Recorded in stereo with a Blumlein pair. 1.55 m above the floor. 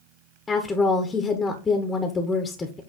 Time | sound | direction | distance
0.5 | a woman speaking | 15° left | 1.1 m